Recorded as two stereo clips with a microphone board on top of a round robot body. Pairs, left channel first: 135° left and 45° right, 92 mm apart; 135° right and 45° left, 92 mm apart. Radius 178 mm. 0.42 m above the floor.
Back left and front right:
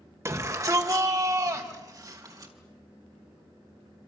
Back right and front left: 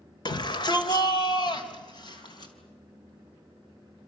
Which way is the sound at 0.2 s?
100° right.